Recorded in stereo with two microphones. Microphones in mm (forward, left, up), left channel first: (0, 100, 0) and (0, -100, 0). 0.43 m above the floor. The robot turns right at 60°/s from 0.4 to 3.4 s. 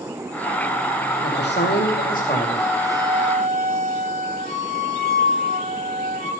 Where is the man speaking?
75° left, 2.5 m; by 2.8 s 170° left, 2.5 m.